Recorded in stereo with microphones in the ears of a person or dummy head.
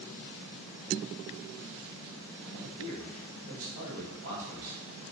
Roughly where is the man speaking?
Right.